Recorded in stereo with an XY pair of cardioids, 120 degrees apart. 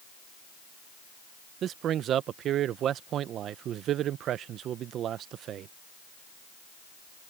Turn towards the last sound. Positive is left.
turn(degrees=-60)